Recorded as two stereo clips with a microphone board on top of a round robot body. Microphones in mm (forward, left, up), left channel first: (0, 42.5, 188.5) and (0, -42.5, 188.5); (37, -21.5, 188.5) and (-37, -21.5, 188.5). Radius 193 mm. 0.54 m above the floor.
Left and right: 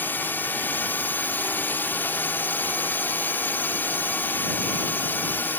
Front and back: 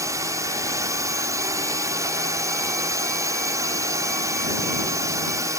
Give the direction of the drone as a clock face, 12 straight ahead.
7 o'clock.